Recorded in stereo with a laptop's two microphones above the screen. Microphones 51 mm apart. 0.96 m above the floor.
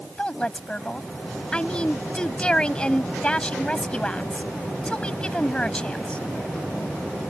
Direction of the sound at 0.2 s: 15° left (ahead or behind).